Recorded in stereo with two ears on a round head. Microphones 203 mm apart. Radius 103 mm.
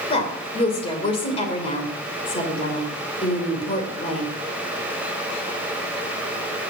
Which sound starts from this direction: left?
A woman speaking, at 0.1 s.